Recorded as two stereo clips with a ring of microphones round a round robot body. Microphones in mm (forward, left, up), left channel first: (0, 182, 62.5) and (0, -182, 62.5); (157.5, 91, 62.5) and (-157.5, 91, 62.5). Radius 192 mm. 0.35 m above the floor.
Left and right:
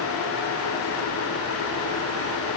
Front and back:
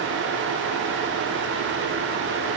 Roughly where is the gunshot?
I don't hear a gunshot.